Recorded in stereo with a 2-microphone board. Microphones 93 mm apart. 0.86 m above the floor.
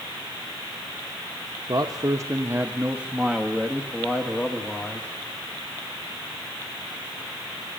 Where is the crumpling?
No crumpling in this recording.